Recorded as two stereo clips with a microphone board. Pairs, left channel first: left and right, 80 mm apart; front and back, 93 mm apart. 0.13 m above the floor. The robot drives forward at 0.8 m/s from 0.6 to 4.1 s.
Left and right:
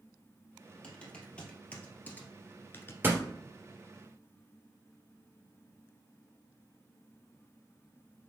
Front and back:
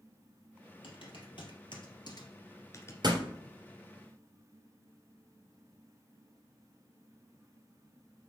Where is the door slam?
150° right, 2 m; by 3.2 s 155° right, 2.5 m.